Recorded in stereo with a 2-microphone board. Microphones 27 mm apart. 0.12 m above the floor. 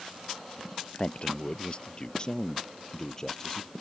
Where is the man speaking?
45° left (ahead or behind); by 3.7 s 15° left (ahead or behind).